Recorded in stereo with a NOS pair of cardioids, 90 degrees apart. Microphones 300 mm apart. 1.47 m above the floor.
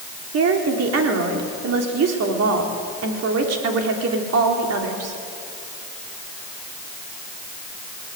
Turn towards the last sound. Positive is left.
turn(degrees=-60)